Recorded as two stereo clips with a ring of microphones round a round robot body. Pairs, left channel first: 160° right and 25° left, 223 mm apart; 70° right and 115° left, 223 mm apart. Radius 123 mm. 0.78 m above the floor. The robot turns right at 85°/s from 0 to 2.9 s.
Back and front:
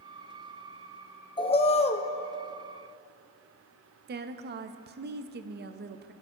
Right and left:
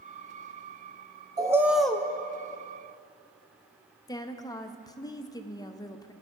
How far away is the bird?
About 0.7 m.